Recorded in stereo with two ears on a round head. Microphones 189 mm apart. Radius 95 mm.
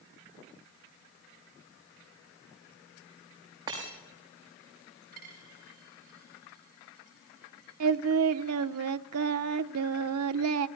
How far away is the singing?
About 0.7 m.